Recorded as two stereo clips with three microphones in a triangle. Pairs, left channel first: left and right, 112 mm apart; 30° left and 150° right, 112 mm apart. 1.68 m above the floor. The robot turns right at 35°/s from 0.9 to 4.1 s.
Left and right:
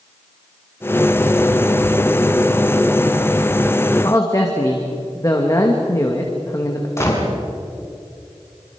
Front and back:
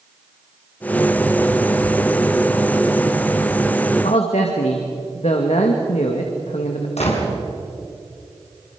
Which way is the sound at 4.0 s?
30° left.